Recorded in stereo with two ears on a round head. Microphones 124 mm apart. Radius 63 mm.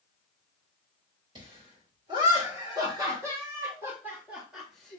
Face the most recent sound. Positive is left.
turn(degrees=5)  # may be behind; listen again after turning